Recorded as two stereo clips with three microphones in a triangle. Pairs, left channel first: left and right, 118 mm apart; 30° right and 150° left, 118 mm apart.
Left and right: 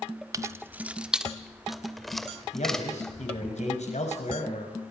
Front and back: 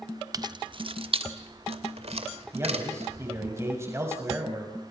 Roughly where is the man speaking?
Left.